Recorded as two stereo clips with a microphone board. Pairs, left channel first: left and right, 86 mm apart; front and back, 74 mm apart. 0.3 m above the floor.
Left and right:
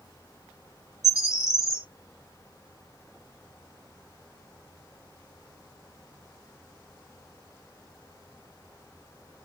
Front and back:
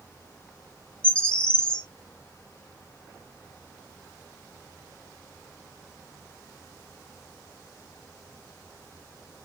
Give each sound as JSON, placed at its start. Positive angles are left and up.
{"t": 1.0, "sound": "a bird", "azimuth_deg": 65, "distance_m": 0.9}